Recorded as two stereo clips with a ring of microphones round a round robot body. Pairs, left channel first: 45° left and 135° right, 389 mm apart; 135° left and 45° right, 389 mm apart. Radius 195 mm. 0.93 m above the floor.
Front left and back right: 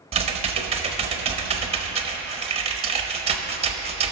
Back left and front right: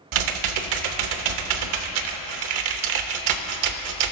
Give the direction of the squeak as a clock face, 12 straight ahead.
No squeak in this recording.